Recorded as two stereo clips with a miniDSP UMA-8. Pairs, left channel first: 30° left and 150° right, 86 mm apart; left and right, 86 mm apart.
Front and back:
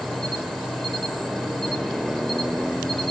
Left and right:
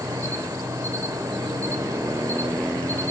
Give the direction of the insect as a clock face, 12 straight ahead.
2 o'clock.